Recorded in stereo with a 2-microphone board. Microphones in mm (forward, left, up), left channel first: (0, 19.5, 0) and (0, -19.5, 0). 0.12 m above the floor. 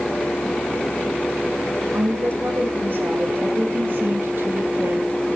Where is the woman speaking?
55° right (ahead or behind), 5.5 m; by 5.3 s 60° right (ahead or behind), 2.5 m.